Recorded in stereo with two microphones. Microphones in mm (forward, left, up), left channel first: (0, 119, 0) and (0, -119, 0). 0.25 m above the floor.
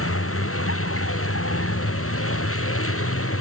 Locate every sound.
0.0 s a vehicle: 70° left (ahead or behind)